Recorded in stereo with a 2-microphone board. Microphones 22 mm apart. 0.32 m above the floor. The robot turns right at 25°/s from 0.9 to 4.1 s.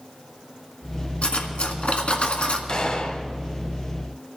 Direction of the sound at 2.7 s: 40° left (ahead or behind).